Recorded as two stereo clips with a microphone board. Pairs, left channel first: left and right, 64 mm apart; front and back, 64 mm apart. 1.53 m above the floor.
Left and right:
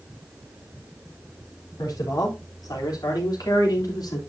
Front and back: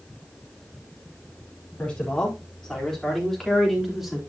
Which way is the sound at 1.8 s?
75° left.